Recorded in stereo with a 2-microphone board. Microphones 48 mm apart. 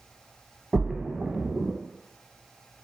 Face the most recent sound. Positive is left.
turn(degrees=-5)  # may be behind; listen again after turning